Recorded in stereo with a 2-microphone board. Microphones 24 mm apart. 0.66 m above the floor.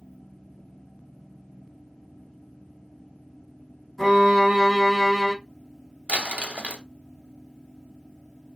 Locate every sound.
4.0 s a violin: 10° left (ahead or behind), 1.7 m
6.1 s crumpling: 65° right (ahead or behind), 0.8 m